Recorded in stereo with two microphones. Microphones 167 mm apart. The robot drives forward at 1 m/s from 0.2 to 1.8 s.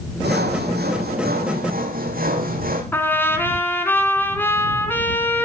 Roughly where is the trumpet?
Centre.